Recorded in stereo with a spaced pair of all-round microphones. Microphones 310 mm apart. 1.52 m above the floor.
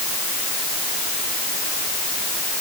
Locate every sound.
Only background noise.